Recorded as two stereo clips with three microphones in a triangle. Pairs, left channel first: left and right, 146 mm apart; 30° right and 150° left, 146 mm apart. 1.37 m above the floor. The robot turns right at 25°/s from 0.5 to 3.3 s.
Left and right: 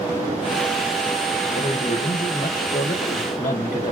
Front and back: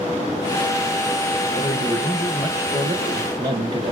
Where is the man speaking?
55° left, 1.1 m; by 3.9 s 100° left, 1.1 m.